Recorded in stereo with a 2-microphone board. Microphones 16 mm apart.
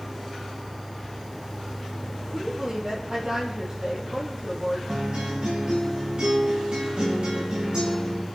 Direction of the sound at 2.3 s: 40° right (ahead or behind).